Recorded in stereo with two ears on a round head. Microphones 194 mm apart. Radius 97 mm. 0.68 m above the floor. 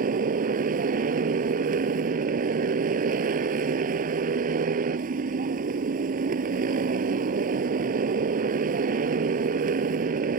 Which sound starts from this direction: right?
A motorcycle, at 0.0 s.